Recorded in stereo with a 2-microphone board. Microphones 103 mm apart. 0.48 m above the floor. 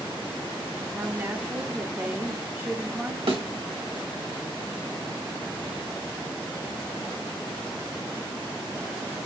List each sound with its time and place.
0.9 s a woman speaking: 25° right (ahead or behind), 0.8 m
3.3 s a thud: 75° right (ahead or behind), 1.1 m